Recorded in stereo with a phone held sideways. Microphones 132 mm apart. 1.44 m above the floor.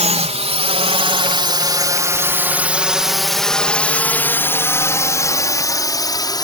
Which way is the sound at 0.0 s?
60° right (ahead or behind).